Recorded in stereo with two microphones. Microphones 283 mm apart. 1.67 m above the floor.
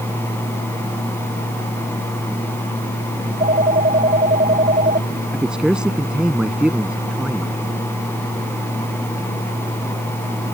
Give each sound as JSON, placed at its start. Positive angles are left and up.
{"t": 3.2, "sound": "a phone ringing", "side_deg": -30}
{"t": 5.3, "sound": "a man speaking", "side_deg": -5}